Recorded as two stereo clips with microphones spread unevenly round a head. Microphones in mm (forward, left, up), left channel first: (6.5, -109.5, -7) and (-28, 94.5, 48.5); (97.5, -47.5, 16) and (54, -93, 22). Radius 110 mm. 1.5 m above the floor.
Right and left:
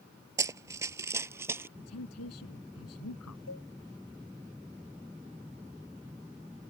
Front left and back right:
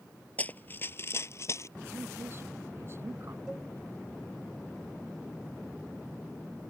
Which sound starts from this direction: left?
Running footsteps, at 0.4 s.